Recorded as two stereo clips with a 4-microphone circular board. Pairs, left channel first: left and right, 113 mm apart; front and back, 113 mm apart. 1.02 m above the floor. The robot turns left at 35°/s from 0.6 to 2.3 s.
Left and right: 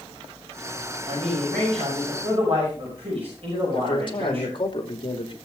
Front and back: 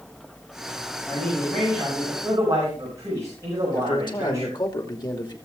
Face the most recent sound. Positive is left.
turn(degrees=50)